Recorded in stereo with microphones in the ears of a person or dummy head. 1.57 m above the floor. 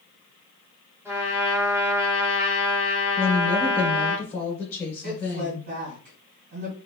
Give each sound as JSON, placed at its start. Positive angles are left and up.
{"t": 1.1, "sound": "a trumpet", "side_deg": -15, "distance_m": 1.0}
{"t": 3.2, "sound": "a woman speaking", "side_deg": 15, "distance_m": 1.1}
{"t": 5.0, "sound": "a woman speaking", "side_deg": -50, "distance_m": 2.0}